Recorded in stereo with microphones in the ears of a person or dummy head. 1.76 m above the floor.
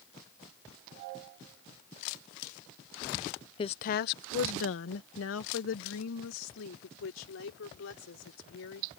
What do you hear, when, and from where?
3.6 s a woman speaking: 30° left (ahead or behind); by 8.9 s 80° left